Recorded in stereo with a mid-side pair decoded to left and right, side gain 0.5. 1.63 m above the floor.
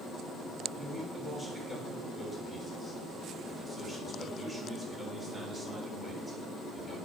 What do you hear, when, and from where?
0.7 s a man speaking: 15° right, 5.5 m